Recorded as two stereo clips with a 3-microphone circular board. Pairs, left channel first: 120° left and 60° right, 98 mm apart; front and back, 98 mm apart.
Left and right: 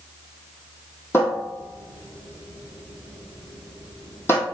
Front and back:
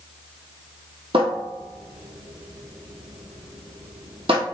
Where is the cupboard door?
Straight behind, 1.1 m.